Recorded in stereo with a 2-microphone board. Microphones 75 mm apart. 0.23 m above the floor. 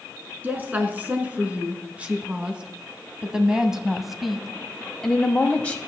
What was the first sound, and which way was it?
A woman speaking, 25° right (ahead or behind).